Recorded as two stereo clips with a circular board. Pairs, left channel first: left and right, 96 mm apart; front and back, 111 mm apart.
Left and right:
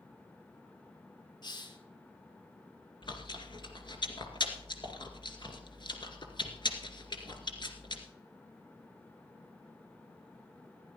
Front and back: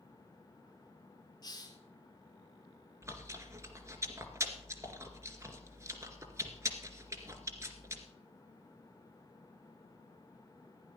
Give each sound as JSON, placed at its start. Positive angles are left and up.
{"t": 1.4, "sound": "a hiss", "azimuth_deg": 50, "distance_m": 2.0}
{"t": 3.0, "sound": "chewing", "azimuth_deg": 120, "distance_m": 2.0}